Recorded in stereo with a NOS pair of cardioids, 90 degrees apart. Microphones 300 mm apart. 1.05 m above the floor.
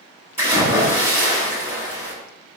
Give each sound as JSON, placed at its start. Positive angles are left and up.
{"t": 0.4, "sound": "a splash", "azimuth_deg": -10, "distance_m": 1.3}